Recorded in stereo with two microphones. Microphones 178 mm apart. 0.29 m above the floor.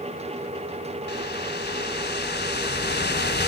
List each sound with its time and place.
1.1 s a whoosh: 70° left (ahead or behind), 0.8 m